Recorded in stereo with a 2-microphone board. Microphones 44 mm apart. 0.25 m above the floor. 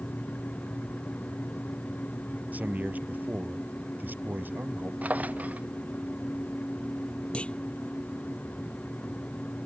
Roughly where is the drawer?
Right.